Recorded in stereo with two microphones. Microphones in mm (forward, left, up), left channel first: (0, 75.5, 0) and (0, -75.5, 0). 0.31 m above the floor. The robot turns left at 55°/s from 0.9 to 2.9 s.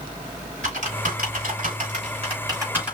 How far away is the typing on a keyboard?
About 3.5 m.